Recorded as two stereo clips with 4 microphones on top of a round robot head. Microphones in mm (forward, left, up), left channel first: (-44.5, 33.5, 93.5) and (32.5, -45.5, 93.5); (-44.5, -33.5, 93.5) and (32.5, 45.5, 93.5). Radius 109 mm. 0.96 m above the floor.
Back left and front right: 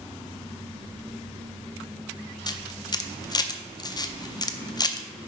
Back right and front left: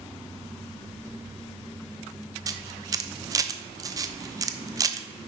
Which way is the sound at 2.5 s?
95° left.